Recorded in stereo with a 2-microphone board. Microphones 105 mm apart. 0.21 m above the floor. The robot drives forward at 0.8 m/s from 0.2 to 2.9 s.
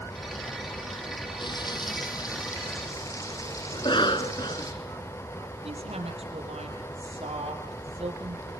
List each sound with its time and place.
1.4 s frying: 50° left (ahead or behind), 1.9 m; by 4.7 s 30° left (ahead or behind), 3 m
3.7 s a cough: 50° left (ahead or behind), 2 m
5.6 s a woman speaking: 80° right, 6.5 m